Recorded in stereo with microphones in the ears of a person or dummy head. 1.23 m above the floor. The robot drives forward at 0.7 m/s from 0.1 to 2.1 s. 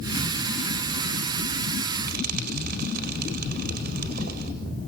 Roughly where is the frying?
Right.